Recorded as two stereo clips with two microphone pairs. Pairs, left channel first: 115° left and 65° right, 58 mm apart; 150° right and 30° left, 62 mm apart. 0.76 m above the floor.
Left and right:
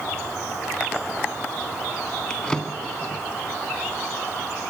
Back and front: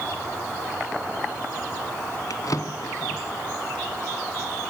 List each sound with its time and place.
2.3 s a drawer: 165° right, 2 m